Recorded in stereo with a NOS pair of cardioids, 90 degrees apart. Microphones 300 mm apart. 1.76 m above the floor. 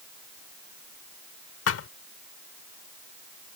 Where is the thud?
55° left.